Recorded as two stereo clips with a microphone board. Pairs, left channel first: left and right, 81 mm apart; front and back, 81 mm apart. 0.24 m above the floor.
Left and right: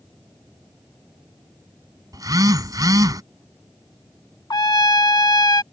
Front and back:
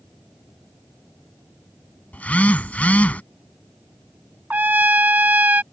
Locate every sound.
2.1 s a phone buzzing: 70° right
4.5 s a trumpet: 115° left